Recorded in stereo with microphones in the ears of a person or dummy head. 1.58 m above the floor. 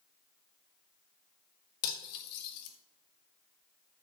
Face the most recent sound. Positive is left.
turn(degrees=55)  # may be behind; listen again after turning